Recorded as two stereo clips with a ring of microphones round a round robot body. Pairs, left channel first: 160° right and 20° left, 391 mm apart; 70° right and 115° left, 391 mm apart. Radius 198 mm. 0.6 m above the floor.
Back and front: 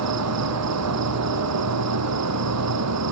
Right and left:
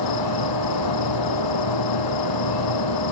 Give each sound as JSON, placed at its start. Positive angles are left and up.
{"t": 0.0, "sound": "an insect", "azimuth_deg": -30}